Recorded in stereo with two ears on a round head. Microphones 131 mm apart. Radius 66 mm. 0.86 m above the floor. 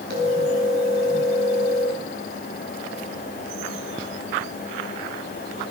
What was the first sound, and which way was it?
A phone ringing, 75° right (ahead or behind).